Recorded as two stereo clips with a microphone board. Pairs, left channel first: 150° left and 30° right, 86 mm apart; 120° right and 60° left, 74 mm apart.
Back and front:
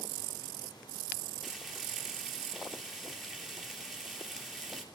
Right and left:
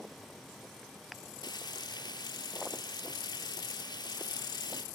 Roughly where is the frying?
Behind right.